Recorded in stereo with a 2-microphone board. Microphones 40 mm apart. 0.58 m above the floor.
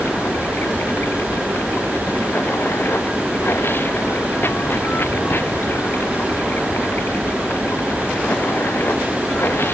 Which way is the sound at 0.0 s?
70° left (ahead or behind).